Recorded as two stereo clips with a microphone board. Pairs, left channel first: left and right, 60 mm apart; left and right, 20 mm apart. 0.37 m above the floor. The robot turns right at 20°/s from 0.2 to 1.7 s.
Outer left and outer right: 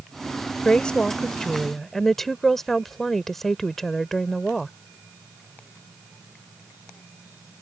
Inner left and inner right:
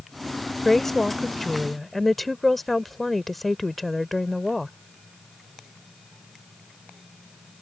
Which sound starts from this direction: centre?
A woman speaking, at 0.7 s.